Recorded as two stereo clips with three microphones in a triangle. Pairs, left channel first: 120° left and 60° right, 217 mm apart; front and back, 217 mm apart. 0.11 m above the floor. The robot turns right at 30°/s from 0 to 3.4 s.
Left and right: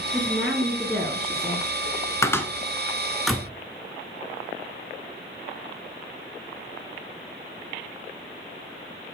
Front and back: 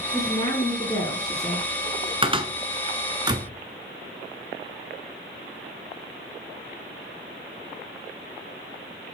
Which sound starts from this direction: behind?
A cupboard door, at 2.2 s.